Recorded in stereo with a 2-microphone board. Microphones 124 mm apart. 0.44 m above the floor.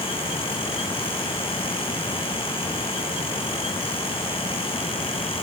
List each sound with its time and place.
Only background noise.